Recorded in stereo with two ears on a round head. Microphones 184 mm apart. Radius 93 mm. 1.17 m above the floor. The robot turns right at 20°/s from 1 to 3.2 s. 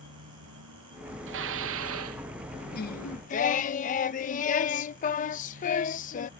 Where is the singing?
50° left (ahead or behind); by 6.3 s 40° left (ahead or behind).